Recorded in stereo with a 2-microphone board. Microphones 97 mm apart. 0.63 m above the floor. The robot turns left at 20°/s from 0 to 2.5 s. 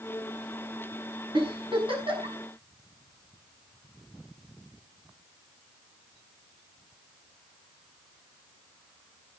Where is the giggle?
55° right (ahead or behind), 6 m; by 2.4 s 75° right (ahead or behind), 6 m.